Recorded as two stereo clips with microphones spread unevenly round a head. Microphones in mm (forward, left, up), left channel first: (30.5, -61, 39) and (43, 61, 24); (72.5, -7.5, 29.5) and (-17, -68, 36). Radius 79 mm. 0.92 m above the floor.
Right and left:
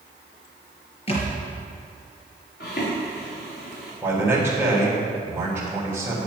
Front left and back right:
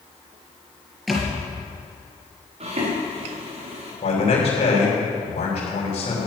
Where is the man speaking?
5° left, 4 m.